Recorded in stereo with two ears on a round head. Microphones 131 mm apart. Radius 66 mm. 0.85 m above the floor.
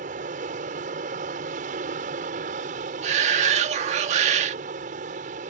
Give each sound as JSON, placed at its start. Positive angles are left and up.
{"t": 0.0, "sound": "an aircraft", "side_deg": -55}
{"t": 3.0, "sound": "a shout", "side_deg": -50}